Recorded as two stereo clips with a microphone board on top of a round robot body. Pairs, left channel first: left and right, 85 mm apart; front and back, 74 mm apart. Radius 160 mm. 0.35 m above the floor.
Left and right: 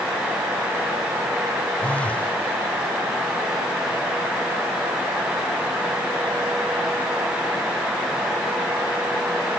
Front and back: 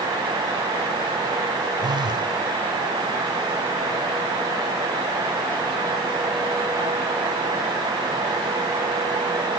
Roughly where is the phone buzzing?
Behind.